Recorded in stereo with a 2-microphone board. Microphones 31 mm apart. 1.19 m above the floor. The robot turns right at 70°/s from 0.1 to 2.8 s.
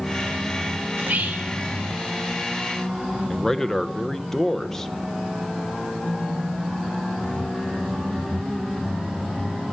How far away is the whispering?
About 1.9 m.